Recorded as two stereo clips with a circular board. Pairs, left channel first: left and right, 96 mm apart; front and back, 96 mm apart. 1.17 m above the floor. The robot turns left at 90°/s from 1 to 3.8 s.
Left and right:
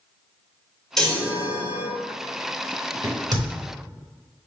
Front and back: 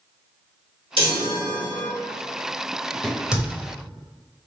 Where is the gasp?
I don't hear a gasp.